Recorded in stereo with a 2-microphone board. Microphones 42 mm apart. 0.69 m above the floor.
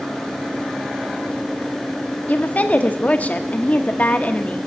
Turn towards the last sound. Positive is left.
turn(degrees=40)  # may be behind; listen again after turning